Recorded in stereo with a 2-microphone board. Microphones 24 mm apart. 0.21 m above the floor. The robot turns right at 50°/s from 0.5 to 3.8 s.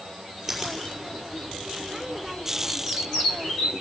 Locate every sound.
0.5 s a finger snap: 10° right (ahead or behind), 6 m; by 0.8 s 25° right (ahead or behind), 6 m